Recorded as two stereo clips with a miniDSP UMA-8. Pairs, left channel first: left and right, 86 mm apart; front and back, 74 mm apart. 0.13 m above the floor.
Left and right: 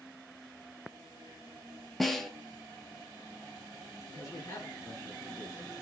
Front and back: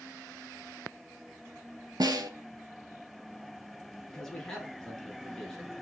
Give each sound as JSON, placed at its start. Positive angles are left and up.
{"t": 2.0, "sound": "a snare drum", "azimuth_deg": 180, "distance_m": 0.6}
{"t": 4.1, "sound": "a man speaking", "azimuth_deg": 75, "distance_m": 1.8}